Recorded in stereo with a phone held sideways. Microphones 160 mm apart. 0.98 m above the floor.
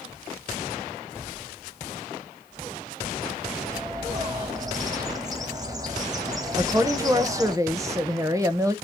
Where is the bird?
25° right (ahead or behind), 1.6 m.